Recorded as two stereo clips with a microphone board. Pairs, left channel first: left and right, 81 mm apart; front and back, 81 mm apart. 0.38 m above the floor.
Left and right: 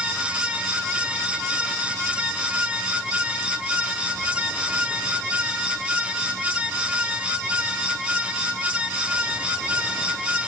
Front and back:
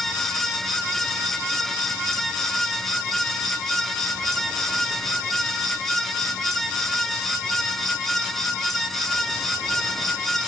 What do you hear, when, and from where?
Only background noise.